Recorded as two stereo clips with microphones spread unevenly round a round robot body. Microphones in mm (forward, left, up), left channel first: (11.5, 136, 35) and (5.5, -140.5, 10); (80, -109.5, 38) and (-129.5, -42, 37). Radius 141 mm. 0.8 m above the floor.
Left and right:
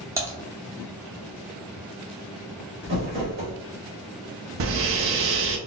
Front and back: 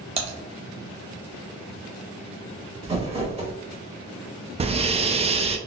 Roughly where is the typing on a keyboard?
Behind.